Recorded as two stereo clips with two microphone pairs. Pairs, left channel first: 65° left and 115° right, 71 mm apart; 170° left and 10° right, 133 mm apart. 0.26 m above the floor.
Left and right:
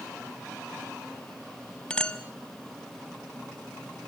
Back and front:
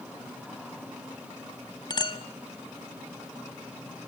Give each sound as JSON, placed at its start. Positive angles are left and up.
{"t": 1.9, "sound": "a clink", "azimuth_deg": 130, "distance_m": 1.0}